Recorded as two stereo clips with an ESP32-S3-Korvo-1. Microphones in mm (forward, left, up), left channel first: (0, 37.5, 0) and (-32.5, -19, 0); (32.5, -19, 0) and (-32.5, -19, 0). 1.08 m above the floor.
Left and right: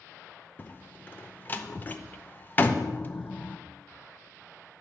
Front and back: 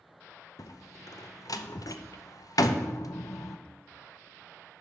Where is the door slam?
5° left, 0.5 m.